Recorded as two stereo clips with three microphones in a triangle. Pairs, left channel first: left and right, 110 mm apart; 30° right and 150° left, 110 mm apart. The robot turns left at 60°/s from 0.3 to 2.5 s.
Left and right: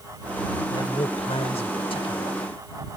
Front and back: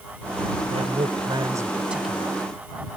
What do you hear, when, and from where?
0.7 s a man speaking: 145° left; by 2.4 s 45° left